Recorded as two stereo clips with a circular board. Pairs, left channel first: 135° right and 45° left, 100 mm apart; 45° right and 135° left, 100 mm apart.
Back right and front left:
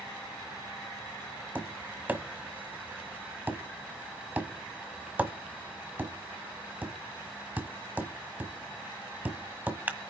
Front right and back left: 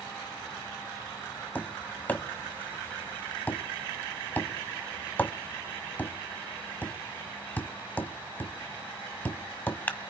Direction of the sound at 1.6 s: Straight ahead.